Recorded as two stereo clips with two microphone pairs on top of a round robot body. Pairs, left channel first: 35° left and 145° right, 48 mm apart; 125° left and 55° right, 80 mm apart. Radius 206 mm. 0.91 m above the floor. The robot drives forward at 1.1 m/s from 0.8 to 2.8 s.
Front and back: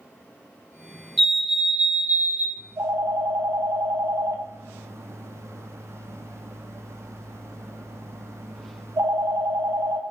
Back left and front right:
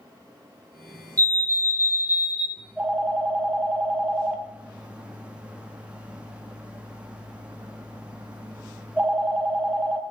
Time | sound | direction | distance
1.2 | a fire alarm | 60° right | 2 m
2.6 | a phone ringing | 125° right | 1.4 m